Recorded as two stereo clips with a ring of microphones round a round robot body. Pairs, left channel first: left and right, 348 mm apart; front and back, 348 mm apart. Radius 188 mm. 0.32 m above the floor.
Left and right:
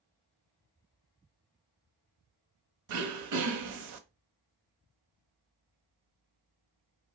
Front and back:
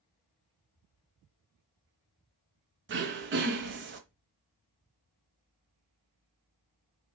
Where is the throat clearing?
125° right, 0.7 m.